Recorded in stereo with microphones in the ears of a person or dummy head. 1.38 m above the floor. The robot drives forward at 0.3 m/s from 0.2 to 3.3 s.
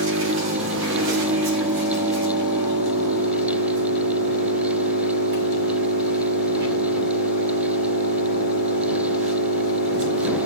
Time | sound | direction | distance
0.0 | an engine running | 75° right (ahead or behind) | 2.5 m